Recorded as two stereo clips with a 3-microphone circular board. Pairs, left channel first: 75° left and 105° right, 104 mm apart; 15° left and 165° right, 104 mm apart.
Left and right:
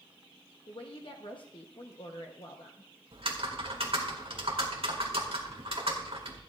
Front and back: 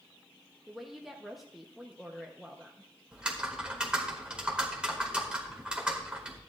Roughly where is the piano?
No piano in this recording.